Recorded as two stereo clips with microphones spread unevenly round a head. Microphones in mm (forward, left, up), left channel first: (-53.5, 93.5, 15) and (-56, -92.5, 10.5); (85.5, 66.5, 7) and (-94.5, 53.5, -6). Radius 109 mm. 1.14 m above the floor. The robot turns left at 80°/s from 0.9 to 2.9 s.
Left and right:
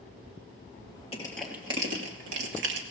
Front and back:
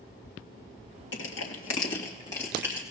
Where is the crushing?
25° left, 2 m; by 2.8 s 110° right, 2 m.